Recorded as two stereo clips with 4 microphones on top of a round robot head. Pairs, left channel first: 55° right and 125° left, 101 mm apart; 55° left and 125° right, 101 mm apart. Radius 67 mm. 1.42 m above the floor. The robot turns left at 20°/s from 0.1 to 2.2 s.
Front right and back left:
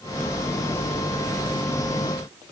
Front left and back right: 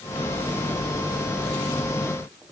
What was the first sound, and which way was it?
Only background noise.